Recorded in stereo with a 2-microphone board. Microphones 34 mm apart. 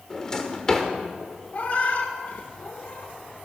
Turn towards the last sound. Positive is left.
turn(degrees=55)  # may be behind; listen again after turning